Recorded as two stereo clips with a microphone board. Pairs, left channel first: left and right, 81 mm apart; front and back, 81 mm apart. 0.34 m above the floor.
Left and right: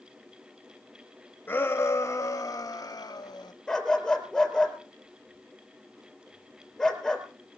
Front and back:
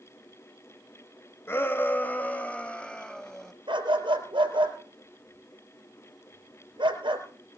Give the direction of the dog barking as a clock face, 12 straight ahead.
6 o'clock.